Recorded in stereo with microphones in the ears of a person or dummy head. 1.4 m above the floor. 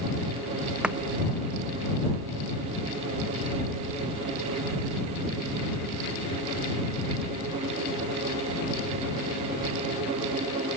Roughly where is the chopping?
Centre.